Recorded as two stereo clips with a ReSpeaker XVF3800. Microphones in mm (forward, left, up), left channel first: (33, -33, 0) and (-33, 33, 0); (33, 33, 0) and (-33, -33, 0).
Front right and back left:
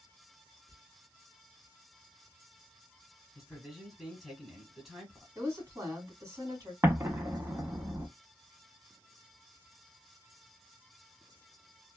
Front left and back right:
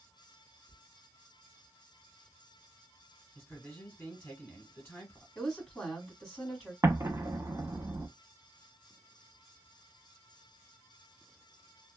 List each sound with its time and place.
0.7 s whispering: 175° left, 1.3 m
3.4 s a man speaking: 50° left, 1.4 m
5.3 s a woman speaking: 125° left, 1.5 m
6.8 s an explosion: 175° right, 0.7 m